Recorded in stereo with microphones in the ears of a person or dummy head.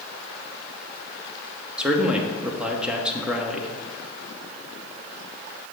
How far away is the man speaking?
About 0.6 m.